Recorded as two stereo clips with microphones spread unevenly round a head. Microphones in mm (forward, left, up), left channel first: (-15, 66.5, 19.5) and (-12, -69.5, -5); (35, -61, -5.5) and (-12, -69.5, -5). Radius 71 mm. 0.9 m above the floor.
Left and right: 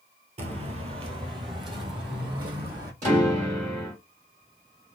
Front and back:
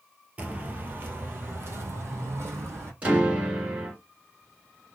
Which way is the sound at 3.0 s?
110° right.